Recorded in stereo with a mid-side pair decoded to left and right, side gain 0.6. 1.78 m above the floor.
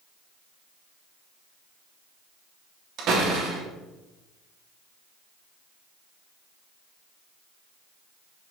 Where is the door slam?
55° right, 3 m.